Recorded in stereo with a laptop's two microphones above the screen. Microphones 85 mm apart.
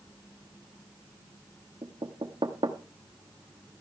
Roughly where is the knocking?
Right.